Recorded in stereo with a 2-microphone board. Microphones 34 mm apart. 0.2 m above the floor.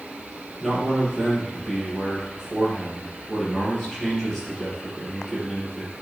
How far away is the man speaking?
About 4.5 m.